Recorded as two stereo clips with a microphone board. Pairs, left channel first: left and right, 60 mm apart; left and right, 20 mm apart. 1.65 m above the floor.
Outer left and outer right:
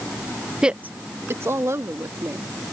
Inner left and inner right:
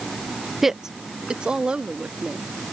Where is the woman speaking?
10° right (ahead or behind); by 2.5 s 55° right (ahead or behind).